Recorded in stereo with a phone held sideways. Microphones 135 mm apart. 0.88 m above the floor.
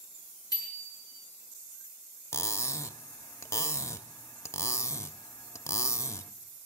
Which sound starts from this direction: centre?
Cutlery clinking, at 2.3 s.